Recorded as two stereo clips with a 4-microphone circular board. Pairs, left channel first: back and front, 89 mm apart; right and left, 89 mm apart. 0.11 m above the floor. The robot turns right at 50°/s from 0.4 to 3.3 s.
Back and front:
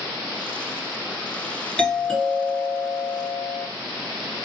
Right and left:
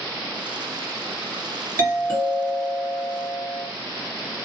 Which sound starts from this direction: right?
A doorbell, at 1.8 s.